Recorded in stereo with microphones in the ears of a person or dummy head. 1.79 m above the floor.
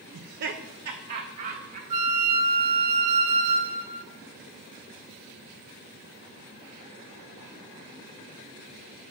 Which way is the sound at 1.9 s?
35° right (ahead or behind).